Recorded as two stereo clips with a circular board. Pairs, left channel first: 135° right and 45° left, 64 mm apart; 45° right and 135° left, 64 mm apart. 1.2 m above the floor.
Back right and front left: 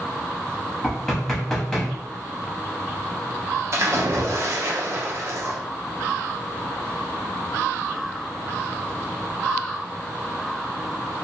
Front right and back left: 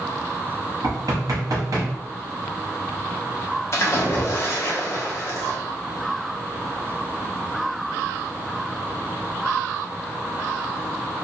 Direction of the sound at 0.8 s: 145° left.